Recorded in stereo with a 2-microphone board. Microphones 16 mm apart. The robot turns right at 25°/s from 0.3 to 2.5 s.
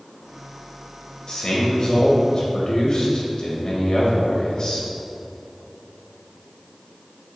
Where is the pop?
No pop in this recording.